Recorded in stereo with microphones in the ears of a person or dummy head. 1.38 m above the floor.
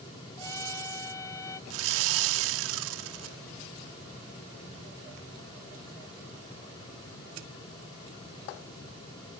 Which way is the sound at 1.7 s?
80° right.